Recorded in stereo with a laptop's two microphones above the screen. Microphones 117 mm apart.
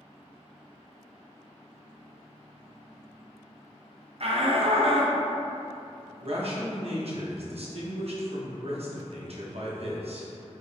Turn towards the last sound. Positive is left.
turn(degrees=-55)  # may be behind; listen again after turning